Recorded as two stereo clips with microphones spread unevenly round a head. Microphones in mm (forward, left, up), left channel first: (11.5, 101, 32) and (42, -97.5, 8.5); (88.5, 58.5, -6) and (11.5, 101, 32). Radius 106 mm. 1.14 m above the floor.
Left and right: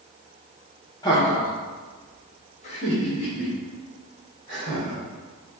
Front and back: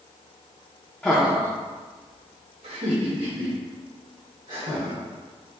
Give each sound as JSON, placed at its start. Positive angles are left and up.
{"t": 1.0, "sound": "laughter", "azimuth_deg": 30, "distance_m": 0.8}